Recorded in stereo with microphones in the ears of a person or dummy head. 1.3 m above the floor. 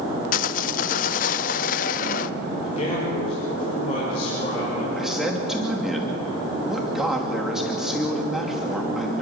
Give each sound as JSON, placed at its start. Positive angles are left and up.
{"t": 0.3, "sound": "sawing", "side_deg": 45, "distance_m": 0.6}
{"t": 2.6, "sound": "a man speaking", "side_deg": 35, "distance_m": 5.0}
{"t": 5.0, "sound": "a man speaking", "side_deg": -5, "distance_m": 2.5}